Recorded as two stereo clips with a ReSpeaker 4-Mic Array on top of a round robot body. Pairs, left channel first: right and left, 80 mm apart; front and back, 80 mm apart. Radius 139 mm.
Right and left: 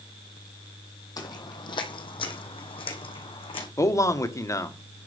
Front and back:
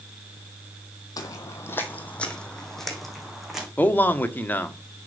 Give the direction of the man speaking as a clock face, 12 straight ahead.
2 o'clock.